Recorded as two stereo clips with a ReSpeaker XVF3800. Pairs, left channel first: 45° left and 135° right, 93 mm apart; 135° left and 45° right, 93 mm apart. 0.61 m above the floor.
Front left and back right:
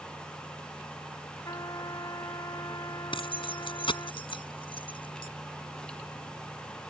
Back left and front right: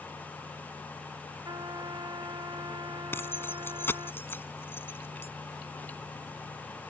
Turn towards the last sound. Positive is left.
turn(degrees=70)